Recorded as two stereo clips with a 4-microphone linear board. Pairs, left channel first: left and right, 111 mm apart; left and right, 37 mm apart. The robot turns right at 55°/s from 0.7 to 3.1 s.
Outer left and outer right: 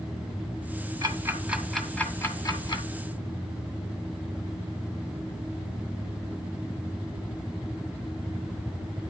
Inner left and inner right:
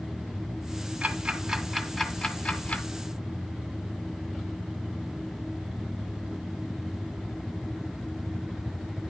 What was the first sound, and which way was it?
Ticking, 35° right (ahead or behind).